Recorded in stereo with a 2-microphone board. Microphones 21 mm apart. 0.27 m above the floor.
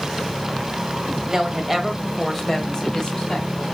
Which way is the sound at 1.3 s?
30° right (ahead or behind).